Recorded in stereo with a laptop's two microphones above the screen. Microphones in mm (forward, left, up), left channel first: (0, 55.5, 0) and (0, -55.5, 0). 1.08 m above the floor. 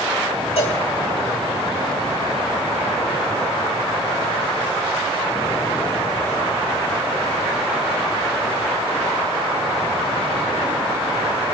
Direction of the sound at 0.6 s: 65° left (ahead or behind).